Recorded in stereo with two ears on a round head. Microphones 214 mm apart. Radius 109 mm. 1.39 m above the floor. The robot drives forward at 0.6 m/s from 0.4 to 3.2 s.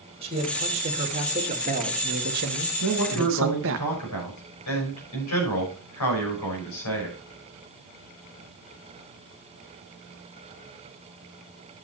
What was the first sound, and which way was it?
A man speaking, 25° right (ahead or behind).